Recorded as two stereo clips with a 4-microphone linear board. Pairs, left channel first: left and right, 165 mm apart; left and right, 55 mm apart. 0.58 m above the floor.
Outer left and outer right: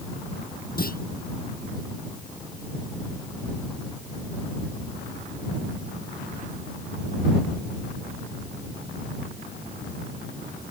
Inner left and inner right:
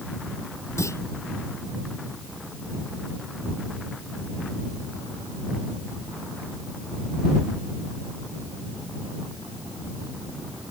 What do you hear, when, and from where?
0.8 s a clunk: 65° left (ahead or behind)